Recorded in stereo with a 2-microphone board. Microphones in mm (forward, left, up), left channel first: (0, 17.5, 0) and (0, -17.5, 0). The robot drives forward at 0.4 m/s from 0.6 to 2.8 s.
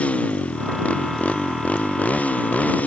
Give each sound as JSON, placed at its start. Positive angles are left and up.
{"t": 0.0, "sound": "a motorcycle", "side_deg": 35}